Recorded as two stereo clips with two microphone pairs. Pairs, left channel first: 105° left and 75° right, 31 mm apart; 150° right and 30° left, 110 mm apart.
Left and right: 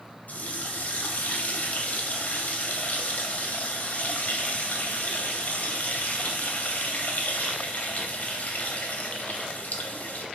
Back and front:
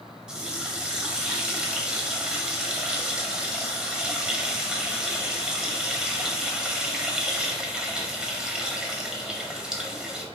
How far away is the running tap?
About 0.7 m.